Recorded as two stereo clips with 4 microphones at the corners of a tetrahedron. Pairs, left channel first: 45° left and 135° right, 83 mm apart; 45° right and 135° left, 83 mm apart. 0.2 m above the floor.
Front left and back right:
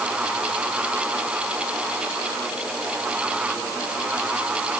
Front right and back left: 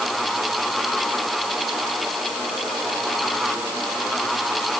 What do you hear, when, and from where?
Only background noise.